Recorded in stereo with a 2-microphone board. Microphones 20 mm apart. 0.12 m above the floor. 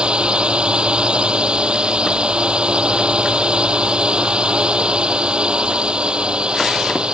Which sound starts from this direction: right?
A drone, at 0.0 s.